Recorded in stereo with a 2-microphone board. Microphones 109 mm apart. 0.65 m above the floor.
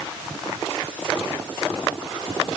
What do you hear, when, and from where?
Only background noise.